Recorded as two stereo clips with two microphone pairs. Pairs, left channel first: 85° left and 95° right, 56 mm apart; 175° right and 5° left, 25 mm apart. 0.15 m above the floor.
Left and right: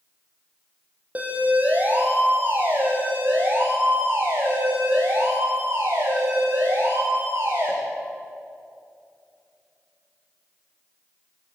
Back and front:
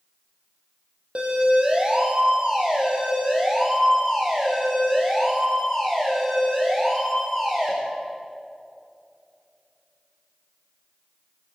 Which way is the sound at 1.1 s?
35° right.